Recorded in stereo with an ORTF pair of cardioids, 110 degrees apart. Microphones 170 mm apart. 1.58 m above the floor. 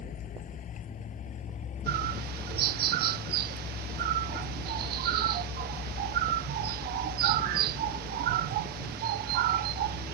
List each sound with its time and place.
0.0 s a vehicle: 50° left; by 10.2 s 35° left
1.9 s a bird: 70° right